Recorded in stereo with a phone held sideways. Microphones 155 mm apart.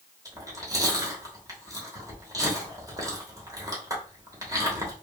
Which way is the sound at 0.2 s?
25° right (ahead or behind).